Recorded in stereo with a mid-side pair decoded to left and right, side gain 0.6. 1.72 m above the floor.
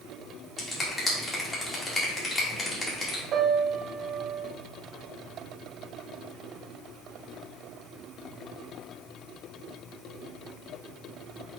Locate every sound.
0.6 s a finger snap: 25° left, 2.5 m
3.3 s a piano: 50° right, 1.4 m